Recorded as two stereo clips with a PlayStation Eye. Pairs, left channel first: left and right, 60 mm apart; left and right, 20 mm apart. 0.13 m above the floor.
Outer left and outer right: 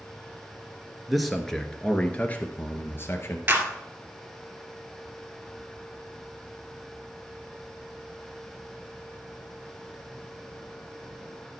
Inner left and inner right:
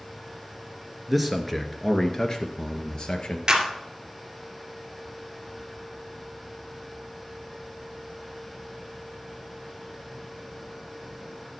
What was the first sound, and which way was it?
A man speaking, 5° right (ahead or behind).